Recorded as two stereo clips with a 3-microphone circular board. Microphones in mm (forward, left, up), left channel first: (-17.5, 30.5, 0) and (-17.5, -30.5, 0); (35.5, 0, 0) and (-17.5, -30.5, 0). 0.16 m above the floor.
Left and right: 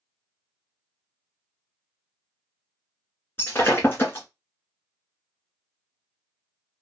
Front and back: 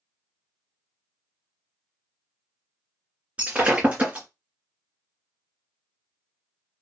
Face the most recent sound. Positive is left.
turn(degrees=145)